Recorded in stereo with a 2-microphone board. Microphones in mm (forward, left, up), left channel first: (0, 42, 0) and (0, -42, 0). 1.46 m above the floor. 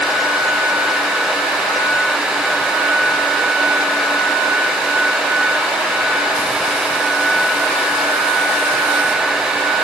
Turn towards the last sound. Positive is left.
No sound to turn to.